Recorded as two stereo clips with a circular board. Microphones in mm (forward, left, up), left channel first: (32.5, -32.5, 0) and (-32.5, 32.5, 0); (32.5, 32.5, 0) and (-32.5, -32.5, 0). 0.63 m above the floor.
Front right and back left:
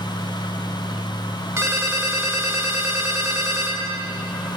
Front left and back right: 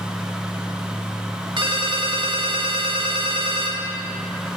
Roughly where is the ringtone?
Behind.